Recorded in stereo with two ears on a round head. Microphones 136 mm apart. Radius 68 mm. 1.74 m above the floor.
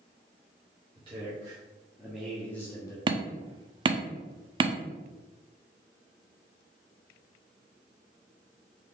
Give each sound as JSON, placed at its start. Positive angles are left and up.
{"t": 0.9, "sound": "a man speaking", "side_deg": -35, "distance_m": 1.3}
{"t": 3.1, "sound": "hammering", "side_deg": -30, "distance_m": 0.5}